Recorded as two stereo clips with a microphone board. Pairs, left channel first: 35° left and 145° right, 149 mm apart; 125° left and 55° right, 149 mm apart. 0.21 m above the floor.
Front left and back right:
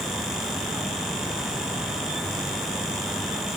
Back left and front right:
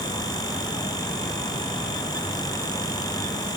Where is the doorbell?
I don't hear a doorbell.